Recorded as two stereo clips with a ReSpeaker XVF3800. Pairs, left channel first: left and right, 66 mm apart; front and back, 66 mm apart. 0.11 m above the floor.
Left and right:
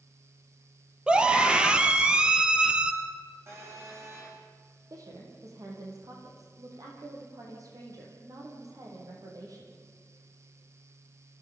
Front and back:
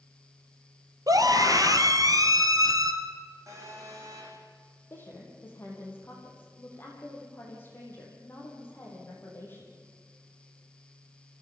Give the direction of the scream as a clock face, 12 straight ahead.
6 o'clock.